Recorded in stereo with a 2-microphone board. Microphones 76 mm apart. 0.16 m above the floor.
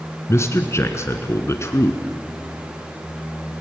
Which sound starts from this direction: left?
A man speaking, at 0.3 s.